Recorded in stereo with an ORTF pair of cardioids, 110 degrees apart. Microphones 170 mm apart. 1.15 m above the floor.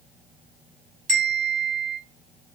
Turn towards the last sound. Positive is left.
turn(degrees=-60)